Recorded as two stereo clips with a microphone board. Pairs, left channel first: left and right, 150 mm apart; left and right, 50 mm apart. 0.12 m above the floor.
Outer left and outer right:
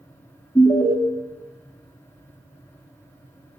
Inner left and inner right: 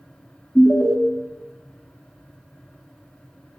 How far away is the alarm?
About 0.8 m.